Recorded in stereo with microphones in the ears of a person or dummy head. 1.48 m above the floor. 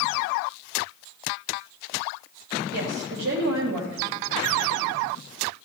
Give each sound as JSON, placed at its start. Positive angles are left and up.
{"t": 2.7, "sound": "a woman speaking", "side_deg": -70, "distance_m": 3.5}